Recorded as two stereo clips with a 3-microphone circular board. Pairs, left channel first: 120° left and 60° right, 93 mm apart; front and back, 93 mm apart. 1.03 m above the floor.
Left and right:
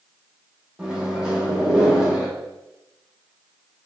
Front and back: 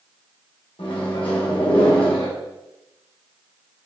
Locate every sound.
0.8 s a microwave: 20° left, 1.0 m